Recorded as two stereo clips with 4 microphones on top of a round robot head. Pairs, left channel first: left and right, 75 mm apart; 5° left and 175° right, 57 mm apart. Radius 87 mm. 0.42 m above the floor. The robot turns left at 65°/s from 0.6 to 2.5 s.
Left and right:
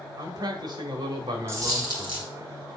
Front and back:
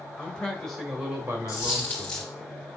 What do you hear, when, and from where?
0.2 s a man speaking: 75° right, 1.8 m; by 2.3 s 175° left, 1.8 m
1.5 s a dropped coin: 35° right, 2 m; by 2.3 s 85° right, 2 m